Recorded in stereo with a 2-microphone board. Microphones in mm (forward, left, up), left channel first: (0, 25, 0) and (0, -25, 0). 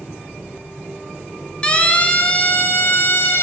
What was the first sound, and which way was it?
A siren, 20° left (ahead or behind).